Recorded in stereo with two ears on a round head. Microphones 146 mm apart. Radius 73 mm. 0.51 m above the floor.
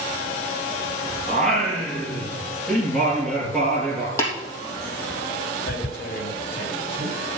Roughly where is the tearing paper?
Left.